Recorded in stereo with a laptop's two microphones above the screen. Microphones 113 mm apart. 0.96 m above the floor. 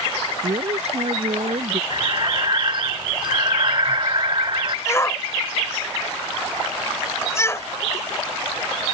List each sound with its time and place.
0.4 s a man speaking: 65° right (ahead or behind)
1.9 s breathing: 45° right (ahead or behind)
4.9 s a shout: 25° left (ahead or behind)